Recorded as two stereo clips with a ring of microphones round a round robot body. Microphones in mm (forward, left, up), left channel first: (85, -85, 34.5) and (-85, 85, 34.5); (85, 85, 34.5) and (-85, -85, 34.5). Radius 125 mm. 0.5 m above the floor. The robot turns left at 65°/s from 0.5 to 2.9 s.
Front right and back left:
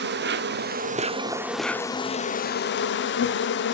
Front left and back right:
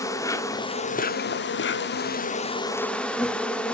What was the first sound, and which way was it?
An insect, 115° left.